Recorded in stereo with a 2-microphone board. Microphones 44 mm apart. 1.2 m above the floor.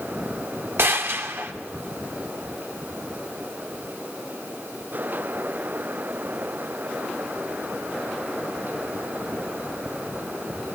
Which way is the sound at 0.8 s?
70° right (ahead or behind).